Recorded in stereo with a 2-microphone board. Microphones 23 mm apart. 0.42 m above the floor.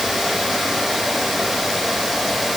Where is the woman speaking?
I don't hear a woman speaking.